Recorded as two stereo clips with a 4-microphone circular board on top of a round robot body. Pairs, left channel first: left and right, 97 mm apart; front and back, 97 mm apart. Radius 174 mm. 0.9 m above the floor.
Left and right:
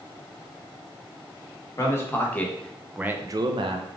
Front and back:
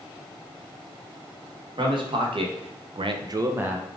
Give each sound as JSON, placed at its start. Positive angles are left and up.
{"t": 1.8, "sound": "a man speaking", "azimuth_deg": 150, "distance_m": 1.0}